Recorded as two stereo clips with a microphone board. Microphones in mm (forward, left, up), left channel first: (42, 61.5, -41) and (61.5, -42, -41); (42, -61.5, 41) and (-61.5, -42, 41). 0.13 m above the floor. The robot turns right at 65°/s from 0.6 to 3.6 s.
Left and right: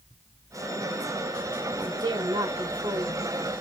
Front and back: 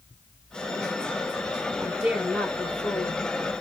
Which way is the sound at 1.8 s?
125° right.